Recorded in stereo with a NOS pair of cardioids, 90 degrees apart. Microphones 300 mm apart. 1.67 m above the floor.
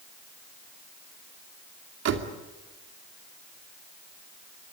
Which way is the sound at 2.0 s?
65° right.